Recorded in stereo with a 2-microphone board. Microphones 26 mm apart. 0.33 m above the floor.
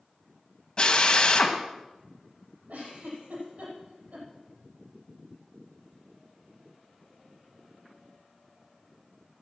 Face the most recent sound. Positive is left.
turn(degrees=-85)